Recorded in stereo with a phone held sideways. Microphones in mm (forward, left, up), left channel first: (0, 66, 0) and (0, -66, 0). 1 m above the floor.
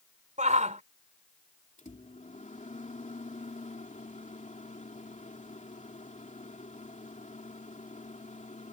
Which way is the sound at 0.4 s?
65° right (ahead or behind).